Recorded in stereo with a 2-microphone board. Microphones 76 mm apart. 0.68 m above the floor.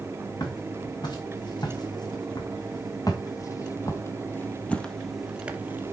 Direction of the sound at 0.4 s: 75° left (ahead or behind).